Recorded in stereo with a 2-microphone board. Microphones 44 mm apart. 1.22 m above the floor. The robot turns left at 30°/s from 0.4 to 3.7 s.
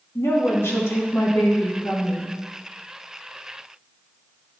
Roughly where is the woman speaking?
Left.